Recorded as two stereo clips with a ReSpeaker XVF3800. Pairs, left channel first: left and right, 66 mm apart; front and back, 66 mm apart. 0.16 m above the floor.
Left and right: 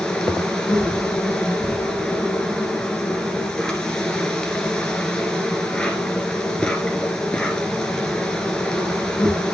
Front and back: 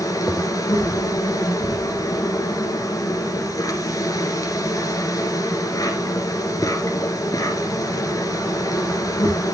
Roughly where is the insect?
Ahead.